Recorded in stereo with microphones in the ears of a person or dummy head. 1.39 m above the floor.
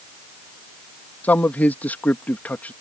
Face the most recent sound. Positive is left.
turn(degrees=10)  # may be behind; listen again after turning